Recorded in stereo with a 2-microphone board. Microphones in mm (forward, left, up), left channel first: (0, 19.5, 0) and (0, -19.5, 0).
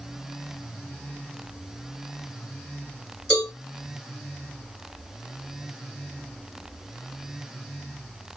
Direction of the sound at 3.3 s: 20° left (ahead or behind).